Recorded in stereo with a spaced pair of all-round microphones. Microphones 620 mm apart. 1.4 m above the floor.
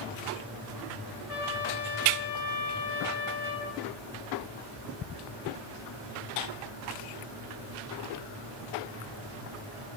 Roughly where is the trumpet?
Left.